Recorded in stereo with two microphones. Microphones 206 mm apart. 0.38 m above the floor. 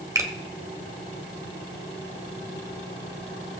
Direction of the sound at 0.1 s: 15° right (ahead or behind).